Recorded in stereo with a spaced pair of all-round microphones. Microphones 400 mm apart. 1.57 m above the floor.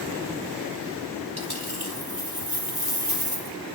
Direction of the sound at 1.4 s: 65° right (ahead or behind).